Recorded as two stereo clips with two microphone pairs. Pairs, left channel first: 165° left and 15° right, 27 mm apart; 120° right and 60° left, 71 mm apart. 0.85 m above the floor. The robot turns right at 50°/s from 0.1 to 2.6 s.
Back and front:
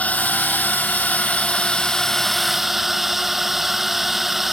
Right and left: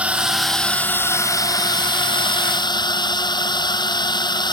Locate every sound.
0.0 s a drone: 135° left; by 4.5 s 100° right